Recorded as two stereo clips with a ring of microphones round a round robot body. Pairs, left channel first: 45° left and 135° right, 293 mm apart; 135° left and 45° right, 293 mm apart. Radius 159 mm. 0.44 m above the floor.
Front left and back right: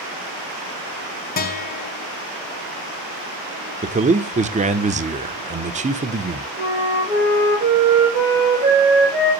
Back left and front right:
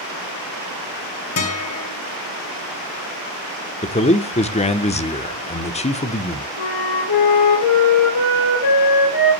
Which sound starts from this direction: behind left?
A flute, at 6.6 s.